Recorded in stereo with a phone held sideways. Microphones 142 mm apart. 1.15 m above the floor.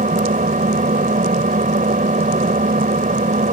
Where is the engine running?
70° right (ahead or behind).